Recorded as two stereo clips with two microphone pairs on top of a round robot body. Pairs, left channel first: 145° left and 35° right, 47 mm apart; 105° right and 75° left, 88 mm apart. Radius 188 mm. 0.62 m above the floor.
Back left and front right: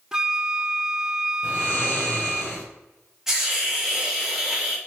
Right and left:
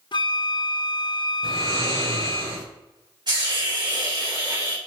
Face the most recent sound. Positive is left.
turn(degrees=45)